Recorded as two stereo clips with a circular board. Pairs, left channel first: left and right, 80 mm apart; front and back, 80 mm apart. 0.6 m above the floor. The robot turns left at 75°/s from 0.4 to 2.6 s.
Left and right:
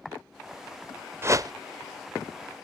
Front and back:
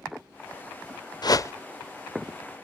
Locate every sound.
1.2 s a whoosh: 30° right, 0.6 m; by 1.5 s 55° right, 0.6 m